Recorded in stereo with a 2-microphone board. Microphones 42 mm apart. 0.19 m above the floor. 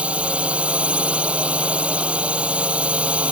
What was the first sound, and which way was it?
A drone, 30° right (ahead or behind).